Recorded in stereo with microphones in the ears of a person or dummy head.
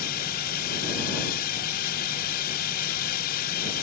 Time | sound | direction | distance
0.0 | a drone | 50° left (ahead or behind) | ?